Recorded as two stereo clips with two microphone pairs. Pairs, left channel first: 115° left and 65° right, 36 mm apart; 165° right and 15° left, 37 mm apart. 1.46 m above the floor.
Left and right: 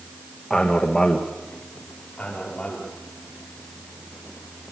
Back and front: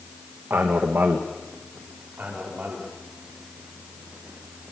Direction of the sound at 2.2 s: 55° left.